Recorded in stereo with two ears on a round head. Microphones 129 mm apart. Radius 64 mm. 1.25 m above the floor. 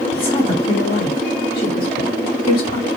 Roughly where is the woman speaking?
Left.